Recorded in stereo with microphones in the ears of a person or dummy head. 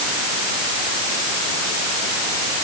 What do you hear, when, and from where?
Only background noise.